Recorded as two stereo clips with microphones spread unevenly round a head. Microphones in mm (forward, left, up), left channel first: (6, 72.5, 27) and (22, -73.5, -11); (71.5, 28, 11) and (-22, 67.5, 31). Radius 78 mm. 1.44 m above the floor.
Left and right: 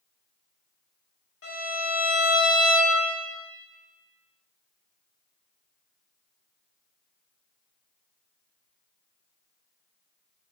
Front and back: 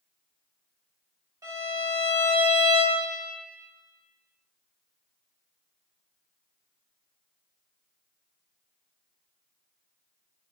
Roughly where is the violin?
Left.